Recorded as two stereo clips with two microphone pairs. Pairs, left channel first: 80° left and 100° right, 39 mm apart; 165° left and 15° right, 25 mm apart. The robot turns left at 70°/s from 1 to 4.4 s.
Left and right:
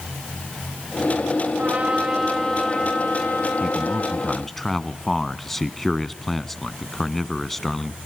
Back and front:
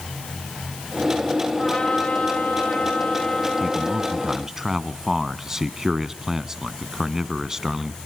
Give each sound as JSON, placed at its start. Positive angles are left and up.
{"t": 1.6, "sound": "a trumpet", "azimuth_deg": -140, "distance_m": 5.0}
{"t": 3.6, "sound": "a man speaking", "azimuth_deg": 65, "distance_m": 1.0}